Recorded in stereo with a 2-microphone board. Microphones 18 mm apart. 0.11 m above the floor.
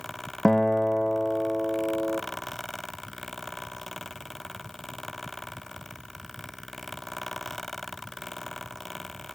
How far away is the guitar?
About 2.0 m.